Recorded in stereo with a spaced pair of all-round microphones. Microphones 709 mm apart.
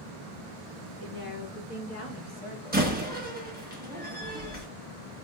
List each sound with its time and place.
1.0 s a woman speaking: 30° left (ahead or behind), 2.5 m; by 2.9 s centre (ahead or behind), 1.6 m
2.7 s a door slam: 15° right (ahead or behind), 1.3 m